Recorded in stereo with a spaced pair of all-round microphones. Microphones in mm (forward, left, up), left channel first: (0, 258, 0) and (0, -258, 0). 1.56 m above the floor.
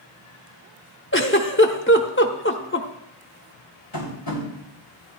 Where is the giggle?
20° left (ahead or behind), 1.0 m.